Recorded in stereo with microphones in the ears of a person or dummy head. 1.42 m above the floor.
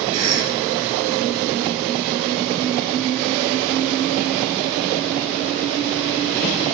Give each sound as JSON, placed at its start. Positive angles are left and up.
{"t": 0.1, "sound": "a cough", "side_deg": -80, "distance_m": 2.0}